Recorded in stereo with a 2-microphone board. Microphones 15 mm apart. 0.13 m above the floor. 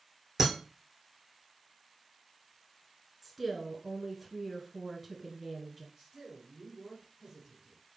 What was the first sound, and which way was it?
Breaking glass, 25° right (ahead or behind).